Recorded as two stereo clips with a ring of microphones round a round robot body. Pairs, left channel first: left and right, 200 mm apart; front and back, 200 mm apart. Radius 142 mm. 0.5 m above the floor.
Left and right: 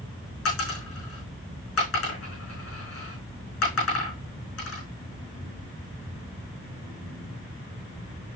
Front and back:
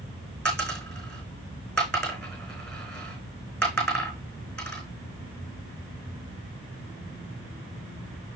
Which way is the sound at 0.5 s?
85° left.